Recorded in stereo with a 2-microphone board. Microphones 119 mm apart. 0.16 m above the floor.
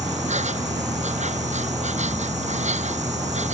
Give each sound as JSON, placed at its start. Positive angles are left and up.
{"t": 0.0, "sound": "an insect", "side_deg": -75}